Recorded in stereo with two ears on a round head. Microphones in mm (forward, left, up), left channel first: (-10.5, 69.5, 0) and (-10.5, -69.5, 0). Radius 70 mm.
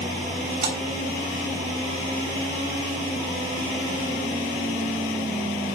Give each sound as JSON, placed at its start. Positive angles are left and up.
{"t": 0.6, "sound": "a splash", "side_deg": -55, "distance_m": 3.0}